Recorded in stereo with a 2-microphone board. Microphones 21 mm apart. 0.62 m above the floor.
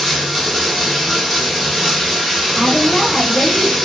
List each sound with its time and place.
0.0 s running water: 5° left (ahead or behind), 1.0 m
2.5 s a woman speaking: 30° left (ahead or behind), 0.8 m